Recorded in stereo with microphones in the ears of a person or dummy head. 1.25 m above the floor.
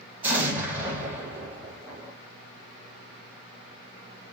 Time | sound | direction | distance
0.2 | an explosion | 15° right (ahead or behind) | 0.5 m